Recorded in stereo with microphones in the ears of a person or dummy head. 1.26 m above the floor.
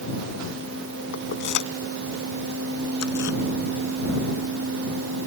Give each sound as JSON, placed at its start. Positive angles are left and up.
{"t": 1.1, "sound": "keys jangling", "side_deg": 60}